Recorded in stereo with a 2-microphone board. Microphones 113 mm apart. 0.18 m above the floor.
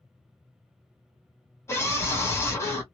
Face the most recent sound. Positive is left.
turn(degrees=25)  # may be behind; listen again after turning